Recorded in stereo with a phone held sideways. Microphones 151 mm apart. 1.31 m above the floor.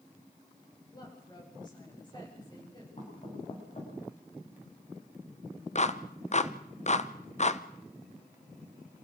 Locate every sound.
0.9 s a woman speaking: 30° left (ahead or behind), 8.5 m
3.0 s knocking: 50° left (ahead or behind), 8.5 m
5.8 s a clap: 50° left (ahead or behind), 0.8 m